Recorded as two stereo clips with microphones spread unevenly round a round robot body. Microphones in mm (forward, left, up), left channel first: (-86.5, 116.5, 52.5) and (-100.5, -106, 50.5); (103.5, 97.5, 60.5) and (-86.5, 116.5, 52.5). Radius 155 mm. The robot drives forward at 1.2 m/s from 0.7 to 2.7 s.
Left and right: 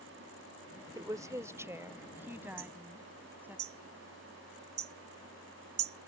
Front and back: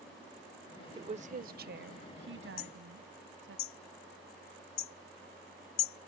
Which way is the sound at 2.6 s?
30° right.